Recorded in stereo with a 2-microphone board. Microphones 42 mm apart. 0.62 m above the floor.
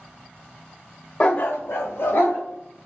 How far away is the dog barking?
About 0.7 m.